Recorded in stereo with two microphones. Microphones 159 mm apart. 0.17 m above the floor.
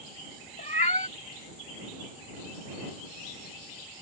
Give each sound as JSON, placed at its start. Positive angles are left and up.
{"t": 0.6, "sound": "a cat meowing", "side_deg": 45}